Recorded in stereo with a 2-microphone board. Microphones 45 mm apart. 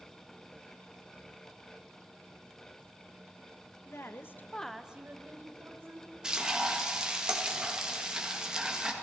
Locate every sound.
3.9 s a woman speaking: 75° left (ahead or behind), 1.2 m; by 6.1 s 60° right (ahead or behind), 2 m
6.2 s frying: 20° right (ahead or behind), 1.5 m